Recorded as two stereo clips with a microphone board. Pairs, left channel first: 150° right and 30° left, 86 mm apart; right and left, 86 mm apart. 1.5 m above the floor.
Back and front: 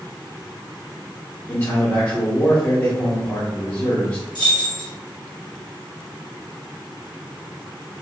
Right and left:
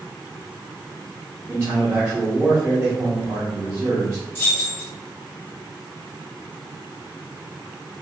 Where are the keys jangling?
150° right, 1.0 m.